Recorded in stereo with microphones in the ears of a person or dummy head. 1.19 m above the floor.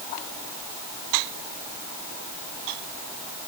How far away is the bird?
No bird in this recording.